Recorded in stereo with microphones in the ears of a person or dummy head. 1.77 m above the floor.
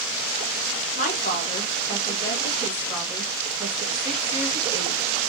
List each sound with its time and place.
0.9 s a woman speaking: 45° left (ahead or behind), 1.5 m; by 5.2 s 25° right (ahead or behind), 2 m